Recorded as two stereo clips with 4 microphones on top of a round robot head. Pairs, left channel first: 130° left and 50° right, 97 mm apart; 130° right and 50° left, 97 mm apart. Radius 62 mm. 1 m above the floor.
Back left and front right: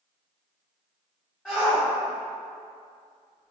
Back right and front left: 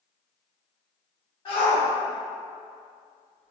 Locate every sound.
1.4 s a shout: 160° right, 1.4 m; by 3.5 s 175° left, 2 m